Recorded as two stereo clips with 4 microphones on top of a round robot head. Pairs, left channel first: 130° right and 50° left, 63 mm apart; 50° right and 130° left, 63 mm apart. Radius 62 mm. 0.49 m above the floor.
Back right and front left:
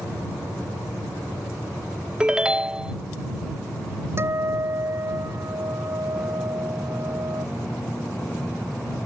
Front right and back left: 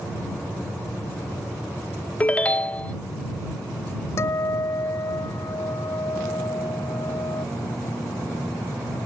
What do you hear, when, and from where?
2.2 s a ringtone: 10° right
4.2 s a guitar: 5° right